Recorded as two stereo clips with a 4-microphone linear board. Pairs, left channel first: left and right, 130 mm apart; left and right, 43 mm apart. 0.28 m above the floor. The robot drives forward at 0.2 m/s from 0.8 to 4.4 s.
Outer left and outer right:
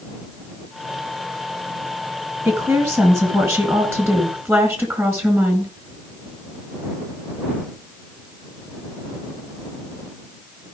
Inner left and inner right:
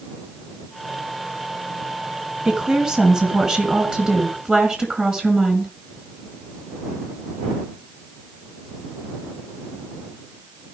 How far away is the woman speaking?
About 3 m.